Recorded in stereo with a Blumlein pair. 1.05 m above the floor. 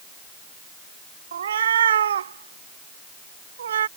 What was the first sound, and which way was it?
A cat meowing, 65° right.